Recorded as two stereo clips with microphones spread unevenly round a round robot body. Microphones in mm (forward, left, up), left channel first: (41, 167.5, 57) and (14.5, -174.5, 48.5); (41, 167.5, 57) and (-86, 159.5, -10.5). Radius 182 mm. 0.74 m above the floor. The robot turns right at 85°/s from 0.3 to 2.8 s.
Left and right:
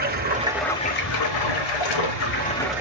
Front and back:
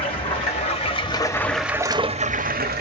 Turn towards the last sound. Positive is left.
turn(degrees=180)